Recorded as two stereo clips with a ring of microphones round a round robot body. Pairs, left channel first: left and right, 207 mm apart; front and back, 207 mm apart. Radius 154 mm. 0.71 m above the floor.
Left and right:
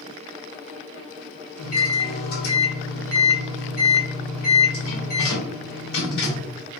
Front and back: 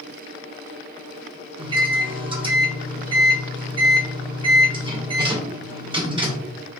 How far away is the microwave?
About 1.2 m.